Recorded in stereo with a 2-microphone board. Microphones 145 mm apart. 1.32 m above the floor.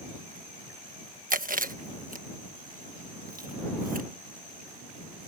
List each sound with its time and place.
1.3 s chewing: 70° right (ahead or behind)